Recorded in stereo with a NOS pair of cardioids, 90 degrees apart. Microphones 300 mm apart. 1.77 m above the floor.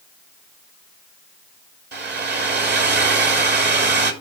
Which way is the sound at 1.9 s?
35° right.